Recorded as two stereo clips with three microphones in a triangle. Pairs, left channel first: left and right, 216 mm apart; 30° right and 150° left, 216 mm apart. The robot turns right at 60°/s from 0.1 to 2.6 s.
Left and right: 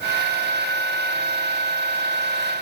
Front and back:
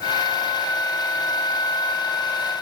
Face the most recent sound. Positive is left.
No sound to turn to.